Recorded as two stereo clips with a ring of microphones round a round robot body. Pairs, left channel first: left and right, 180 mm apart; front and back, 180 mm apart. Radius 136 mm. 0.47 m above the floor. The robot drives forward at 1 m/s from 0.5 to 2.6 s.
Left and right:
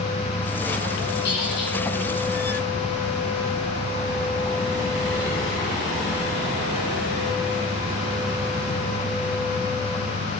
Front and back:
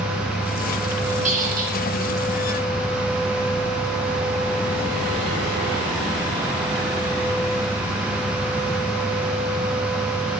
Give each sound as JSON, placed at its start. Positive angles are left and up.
{"t": 1.2, "sound": "a squeak", "azimuth_deg": 130, "distance_m": 1.6}